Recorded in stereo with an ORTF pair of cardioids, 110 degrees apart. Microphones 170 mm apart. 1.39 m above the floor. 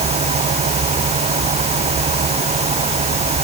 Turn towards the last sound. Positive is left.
turn(degrees=-40)